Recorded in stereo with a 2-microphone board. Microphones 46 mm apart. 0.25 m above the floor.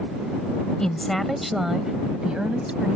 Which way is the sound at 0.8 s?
15° left (ahead or behind).